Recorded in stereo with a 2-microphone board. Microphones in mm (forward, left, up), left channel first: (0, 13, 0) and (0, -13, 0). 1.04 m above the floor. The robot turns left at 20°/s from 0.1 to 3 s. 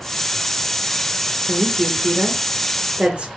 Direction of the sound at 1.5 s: 60° right (ahead or behind).